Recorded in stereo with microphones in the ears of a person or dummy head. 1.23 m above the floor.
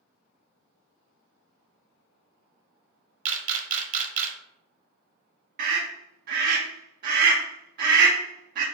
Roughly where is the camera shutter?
Right.